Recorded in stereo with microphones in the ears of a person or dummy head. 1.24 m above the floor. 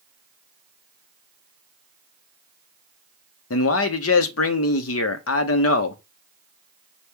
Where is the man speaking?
75° left (ahead or behind), 0.9 m.